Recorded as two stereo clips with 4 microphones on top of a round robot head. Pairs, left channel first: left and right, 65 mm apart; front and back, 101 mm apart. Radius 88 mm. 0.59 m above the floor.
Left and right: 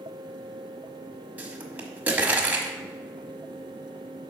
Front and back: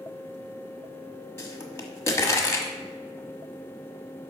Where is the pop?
40° right, 1.2 m.